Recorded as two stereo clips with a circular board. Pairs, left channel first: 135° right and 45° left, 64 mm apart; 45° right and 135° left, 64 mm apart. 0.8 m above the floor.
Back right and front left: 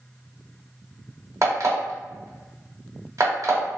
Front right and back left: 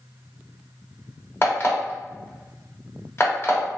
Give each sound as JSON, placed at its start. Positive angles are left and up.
{"t": 1.4, "sound": "an alarm clock", "azimuth_deg": 10, "distance_m": 0.8}